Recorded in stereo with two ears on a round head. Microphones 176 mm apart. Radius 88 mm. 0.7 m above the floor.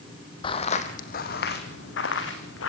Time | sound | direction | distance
0.4 | footsteps | 25° left (ahead or behind) | 1.8 m